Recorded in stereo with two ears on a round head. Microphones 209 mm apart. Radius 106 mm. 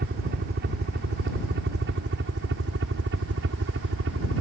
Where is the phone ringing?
I don't hear a phone ringing.